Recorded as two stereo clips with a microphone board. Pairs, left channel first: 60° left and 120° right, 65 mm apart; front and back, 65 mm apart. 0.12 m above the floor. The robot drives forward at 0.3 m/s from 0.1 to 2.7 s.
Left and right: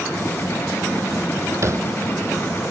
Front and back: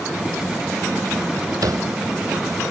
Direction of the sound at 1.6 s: 160° right.